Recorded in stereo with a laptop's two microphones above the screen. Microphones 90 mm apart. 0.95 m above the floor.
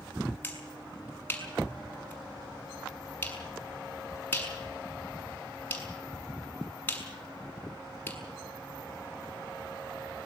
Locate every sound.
0.4 s a finger snap: 20° left (ahead or behind), 6.5 m